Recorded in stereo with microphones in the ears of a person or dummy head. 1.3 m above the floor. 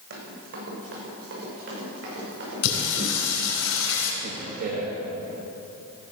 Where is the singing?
70° left (ahead or behind), 2.5 m.